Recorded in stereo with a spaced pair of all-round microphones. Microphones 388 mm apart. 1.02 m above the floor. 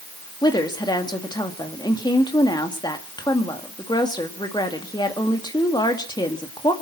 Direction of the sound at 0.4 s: 10° left (ahead or behind).